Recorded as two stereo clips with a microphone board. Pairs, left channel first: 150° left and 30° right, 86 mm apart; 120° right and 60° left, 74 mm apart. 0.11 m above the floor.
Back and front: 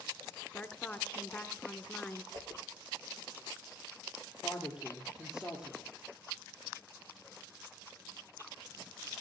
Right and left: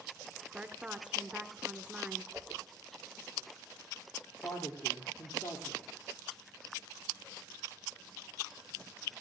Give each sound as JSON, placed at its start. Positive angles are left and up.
{"t": 0.5, "sound": "a woman speaking", "azimuth_deg": 105, "distance_m": 1.1}
{"t": 2.3, "sound": "a whoosh", "azimuth_deg": -10, "distance_m": 3.5}
{"t": 4.4, "sound": "a woman speaking", "azimuth_deg": -110, "distance_m": 3.0}